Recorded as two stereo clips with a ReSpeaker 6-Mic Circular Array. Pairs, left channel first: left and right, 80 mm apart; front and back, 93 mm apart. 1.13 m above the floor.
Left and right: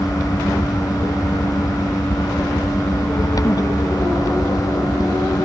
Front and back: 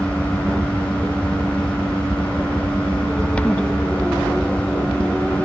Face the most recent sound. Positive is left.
No sound to turn to.